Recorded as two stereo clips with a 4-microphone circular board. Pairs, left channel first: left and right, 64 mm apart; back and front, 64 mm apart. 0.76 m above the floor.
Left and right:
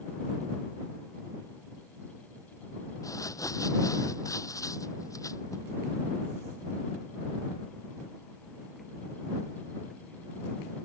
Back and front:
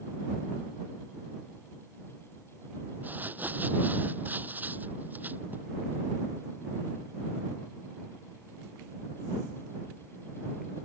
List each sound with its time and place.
3.0 s crumpling: 60° left